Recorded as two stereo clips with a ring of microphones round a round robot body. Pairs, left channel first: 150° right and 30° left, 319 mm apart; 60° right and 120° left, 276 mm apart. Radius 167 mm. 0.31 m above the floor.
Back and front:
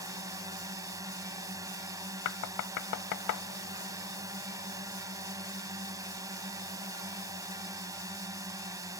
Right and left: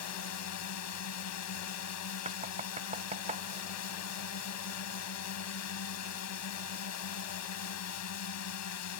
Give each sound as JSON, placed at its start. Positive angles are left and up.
{"t": 0.0, "sound": "a drone", "azimuth_deg": -50}
{"t": 2.2, "sound": "knocking", "azimuth_deg": -175}